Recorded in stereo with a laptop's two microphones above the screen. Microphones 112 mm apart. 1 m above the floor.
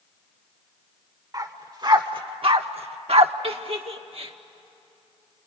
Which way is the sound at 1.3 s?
35° right (ahead or behind).